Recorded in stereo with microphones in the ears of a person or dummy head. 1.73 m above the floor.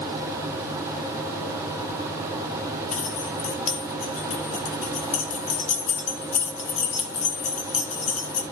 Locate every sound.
2.9 s keys jangling: 40° left (ahead or behind), 2 m